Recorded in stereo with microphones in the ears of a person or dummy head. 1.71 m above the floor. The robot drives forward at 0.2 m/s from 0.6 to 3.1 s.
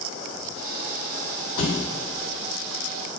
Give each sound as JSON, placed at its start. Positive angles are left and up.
{"t": 1.6, "sound": "a thud", "side_deg": 45, "distance_m": 2.5}